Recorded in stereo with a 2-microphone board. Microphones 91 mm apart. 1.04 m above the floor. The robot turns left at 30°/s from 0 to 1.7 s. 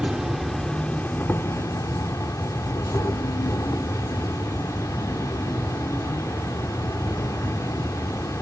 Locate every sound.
0.0 s an insect: 170° right, 1.1 m; by 8.4 s 140° left, 1.1 m